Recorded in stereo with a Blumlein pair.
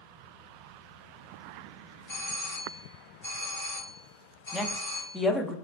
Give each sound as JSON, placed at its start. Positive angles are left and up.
{"t": 2.1, "sound": "a doorbell", "azimuth_deg": 60, "distance_m": 1.9}
{"t": 4.5, "sound": "a woman speaking", "azimuth_deg": 10, "distance_m": 0.6}